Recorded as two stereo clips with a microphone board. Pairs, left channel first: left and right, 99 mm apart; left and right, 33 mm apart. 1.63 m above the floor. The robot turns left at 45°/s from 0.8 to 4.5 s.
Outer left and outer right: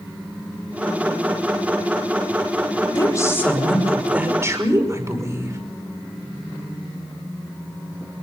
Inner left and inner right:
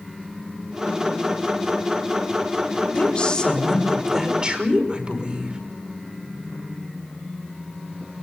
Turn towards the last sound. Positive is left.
turn(degrees=-30)